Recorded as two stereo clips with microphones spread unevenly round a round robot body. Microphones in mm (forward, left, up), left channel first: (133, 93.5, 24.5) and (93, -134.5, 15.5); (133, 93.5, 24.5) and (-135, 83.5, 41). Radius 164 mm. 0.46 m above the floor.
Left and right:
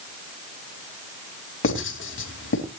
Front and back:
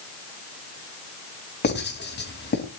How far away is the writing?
About 3.5 m.